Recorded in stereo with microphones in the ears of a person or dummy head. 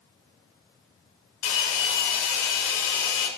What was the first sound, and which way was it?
A hair dryer, 80° left.